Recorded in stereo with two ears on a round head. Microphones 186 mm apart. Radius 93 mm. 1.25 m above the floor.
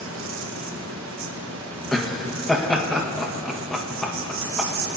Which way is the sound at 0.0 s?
80° right.